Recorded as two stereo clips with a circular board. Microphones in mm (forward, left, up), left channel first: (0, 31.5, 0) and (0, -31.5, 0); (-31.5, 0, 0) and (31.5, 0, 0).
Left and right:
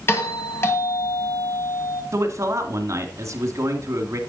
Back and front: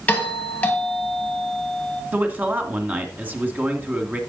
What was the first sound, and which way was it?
A doorbell, 120° left.